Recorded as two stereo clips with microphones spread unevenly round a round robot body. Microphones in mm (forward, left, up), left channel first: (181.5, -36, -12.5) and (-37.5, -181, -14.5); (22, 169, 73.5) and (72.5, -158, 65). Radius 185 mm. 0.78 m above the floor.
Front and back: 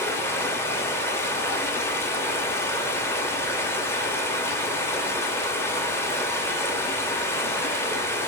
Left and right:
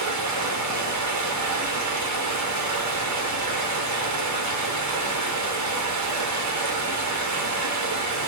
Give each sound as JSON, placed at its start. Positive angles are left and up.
{"t": 0.0, "sound": "running water", "azimuth_deg": -50, "distance_m": 1.1}